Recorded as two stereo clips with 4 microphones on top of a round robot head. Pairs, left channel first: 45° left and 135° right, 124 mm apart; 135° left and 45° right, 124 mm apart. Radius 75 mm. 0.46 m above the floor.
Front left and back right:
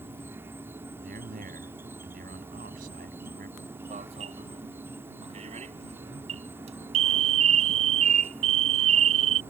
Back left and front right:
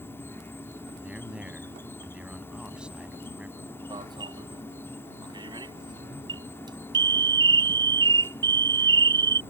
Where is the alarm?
100° right.